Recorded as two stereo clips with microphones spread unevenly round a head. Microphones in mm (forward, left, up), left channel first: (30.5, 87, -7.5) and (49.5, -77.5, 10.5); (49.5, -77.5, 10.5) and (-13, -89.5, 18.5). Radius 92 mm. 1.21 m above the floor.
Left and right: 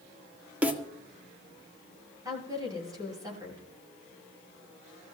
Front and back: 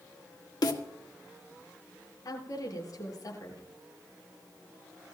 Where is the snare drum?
Straight ahead, 1.7 m.